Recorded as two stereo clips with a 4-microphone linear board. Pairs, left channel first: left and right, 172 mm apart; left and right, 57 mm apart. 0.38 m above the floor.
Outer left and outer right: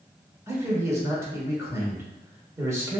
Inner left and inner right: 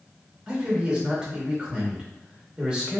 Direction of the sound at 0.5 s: 15° right (ahead or behind).